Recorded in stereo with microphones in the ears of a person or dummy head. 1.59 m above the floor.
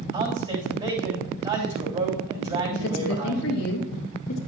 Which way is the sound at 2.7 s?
75° left (ahead or behind).